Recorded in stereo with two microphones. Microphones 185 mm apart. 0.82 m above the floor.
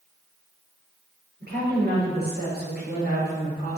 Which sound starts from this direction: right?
A woman speaking, at 1.4 s.